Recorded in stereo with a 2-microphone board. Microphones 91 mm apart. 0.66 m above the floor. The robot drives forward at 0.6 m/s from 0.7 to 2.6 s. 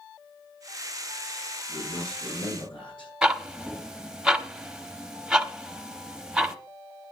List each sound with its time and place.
1.7 s a man speaking: 70° left (ahead or behind), 8.5 m
3.2 s ticking: 5° right (ahead or behind), 0.8 m